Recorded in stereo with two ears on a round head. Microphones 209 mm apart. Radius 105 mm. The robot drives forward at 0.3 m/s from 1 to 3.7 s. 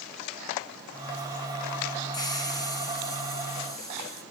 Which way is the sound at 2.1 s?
20° left (ahead or behind).